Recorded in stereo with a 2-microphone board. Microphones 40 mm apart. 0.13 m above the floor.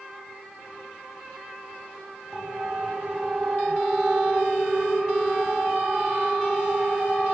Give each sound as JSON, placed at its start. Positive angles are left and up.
{"t": 2.3, "sound": "a siren", "side_deg": -10, "distance_m": 5.0}